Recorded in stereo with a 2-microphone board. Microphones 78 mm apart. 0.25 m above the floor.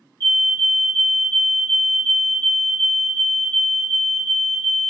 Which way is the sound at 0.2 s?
25° left (ahead or behind).